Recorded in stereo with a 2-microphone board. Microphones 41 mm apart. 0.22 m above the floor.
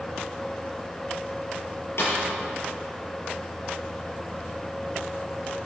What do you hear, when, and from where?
2.0 s a snare drum: 70° left (ahead or behind), 6 m